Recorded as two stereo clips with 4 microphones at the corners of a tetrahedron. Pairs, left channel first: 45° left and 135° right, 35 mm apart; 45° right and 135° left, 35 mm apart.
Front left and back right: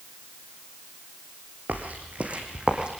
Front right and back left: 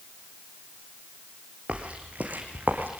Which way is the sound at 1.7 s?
170° right.